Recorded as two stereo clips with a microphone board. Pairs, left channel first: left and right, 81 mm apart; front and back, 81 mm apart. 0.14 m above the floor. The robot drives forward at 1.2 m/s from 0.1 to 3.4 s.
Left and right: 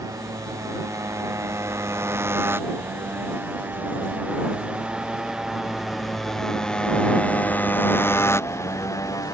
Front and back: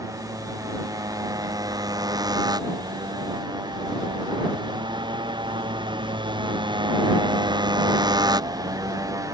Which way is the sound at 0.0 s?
135° right.